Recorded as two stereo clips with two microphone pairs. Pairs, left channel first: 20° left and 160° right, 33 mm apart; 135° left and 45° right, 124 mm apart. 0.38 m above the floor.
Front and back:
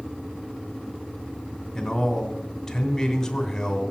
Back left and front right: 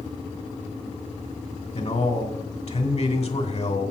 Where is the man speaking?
100° left, 2.5 m.